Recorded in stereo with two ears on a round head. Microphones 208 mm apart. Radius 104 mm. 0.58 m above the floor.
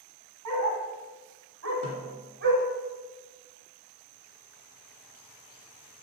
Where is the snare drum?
70° right (ahead or behind), 3 m.